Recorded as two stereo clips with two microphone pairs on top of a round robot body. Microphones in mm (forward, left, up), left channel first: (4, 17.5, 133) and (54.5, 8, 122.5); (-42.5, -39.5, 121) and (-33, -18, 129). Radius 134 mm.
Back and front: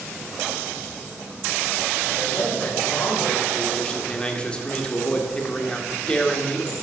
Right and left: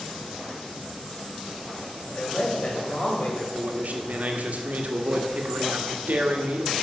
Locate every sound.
2.1 s a man speaking: 155° right, 4.5 m
3.5 s a man speaking: 90° left, 1.8 m